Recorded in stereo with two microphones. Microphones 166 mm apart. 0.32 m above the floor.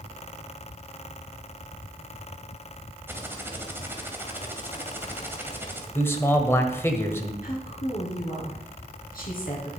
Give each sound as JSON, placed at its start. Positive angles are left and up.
{"t": 3.1, "sound": "typing on a keyboard", "side_deg": -15, "distance_m": 1.9}
{"t": 6.0, "sound": "a man speaking", "side_deg": 15, "distance_m": 1.4}
{"t": 7.4, "sound": "a woman speaking", "side_deg": 60, "distance_m": 4.5}